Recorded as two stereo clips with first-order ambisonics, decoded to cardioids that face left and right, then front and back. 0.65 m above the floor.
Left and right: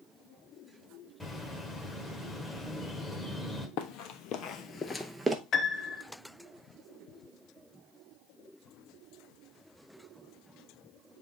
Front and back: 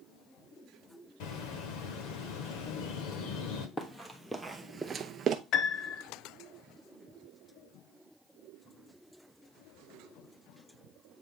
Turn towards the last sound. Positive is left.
turn(degrees=35)